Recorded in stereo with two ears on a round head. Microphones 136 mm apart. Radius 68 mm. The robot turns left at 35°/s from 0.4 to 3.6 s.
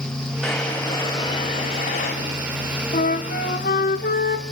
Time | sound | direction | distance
0.4 | a drawer | straight behind | 4.5 m
2.9 | a flute | 65° left (ahead or behind) | 1.1 m